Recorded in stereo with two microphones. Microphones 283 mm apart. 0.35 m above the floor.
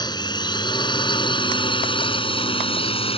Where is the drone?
15° left (ahead or behind); by 3.2 s 20° left (ahead or behind).